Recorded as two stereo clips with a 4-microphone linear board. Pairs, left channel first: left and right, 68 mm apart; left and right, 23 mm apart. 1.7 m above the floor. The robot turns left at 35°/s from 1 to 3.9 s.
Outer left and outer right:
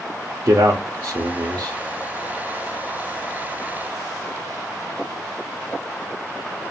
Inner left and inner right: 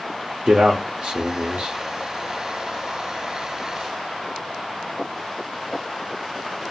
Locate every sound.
0.5 s a man speaking: 75° right (ahead or behind), 0.5 m; by 1.8 s 80° right, 0.5 m